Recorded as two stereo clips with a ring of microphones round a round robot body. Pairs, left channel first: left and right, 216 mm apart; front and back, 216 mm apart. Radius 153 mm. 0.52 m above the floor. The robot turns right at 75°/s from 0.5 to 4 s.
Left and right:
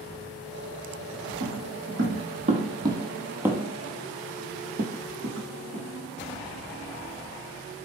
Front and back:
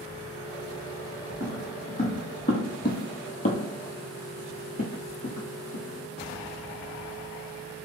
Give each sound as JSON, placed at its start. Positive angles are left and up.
{"t": 1.4, "sound": "footsteps", "azimuth_deg": -105, "distance_m": 1.2}